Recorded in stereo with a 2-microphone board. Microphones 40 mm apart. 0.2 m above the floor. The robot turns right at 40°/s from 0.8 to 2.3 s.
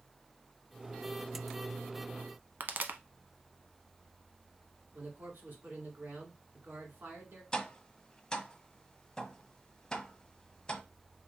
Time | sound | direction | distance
2.6 | a pop | 55° right (ahead or behind) | 0.6 m
4.9 | a man speaking | 60° right (ahead or behind) | 2 m
7.5 | tapping | 20° left (ahead or behind) | 0.7 m